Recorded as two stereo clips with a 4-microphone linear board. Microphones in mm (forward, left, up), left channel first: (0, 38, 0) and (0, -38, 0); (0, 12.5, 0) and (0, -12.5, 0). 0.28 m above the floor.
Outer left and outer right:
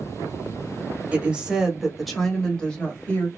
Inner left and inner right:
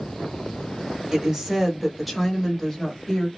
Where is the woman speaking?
15° right (ahead or behind), 1.4 m; by 3.3 s 25° left (ahead or behind), 1.4 m.